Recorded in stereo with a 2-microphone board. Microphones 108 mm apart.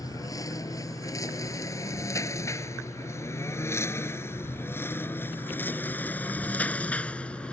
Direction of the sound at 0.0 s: 35° left (ahead or behind).